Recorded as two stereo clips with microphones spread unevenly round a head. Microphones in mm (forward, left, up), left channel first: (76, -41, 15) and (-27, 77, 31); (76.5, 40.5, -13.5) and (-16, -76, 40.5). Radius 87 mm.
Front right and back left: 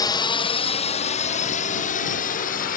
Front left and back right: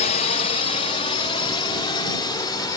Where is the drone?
15° left; by 2.8 s 15° right.